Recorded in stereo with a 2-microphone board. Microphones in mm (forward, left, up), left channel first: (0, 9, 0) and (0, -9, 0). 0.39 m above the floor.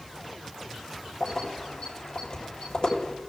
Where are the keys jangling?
50° left (ahead or behind), 6.5 m.